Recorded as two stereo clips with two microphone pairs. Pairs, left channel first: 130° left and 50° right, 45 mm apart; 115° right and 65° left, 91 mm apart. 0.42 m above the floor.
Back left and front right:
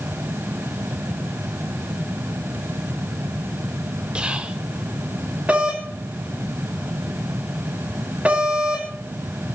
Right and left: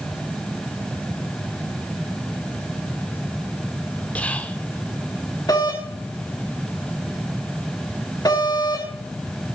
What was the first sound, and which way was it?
Whispering, 60° right.